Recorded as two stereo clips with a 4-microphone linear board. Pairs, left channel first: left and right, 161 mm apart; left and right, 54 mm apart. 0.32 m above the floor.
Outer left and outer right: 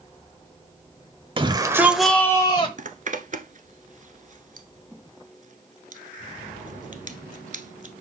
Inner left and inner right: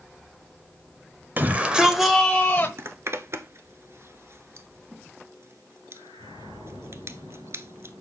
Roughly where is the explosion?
I don't hear an explosion.